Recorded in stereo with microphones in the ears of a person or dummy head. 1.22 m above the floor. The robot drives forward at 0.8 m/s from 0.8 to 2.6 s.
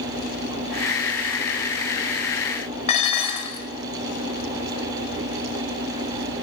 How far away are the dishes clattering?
About 0.7 m.